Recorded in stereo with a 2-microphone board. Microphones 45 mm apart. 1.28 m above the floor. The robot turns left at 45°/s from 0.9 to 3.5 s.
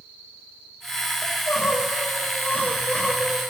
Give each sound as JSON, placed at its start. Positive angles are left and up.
{"t": 1.2, "sound": "crying", "azimuth_deg": 100, "distance_m": 1.3}